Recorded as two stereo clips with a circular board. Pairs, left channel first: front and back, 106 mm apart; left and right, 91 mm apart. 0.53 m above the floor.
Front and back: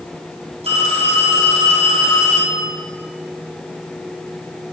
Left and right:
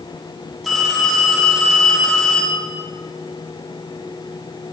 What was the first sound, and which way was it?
A phone ringing, 175° left.